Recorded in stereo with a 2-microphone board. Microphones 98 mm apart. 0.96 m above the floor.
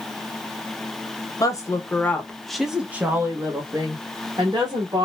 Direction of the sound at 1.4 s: 40° left (ahead or behind).